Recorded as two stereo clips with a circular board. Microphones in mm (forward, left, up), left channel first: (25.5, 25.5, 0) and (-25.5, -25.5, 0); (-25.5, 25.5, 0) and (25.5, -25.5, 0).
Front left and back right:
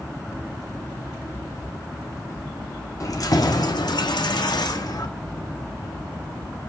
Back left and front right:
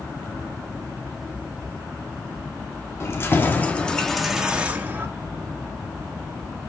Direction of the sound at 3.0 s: 85° left.